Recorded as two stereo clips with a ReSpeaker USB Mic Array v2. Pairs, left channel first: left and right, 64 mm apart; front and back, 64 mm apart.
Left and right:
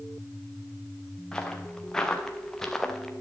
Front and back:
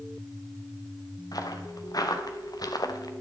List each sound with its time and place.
1.3 s footsteps: 10° left, 2.5 m; by 3.1 s 5° left, 1.6 m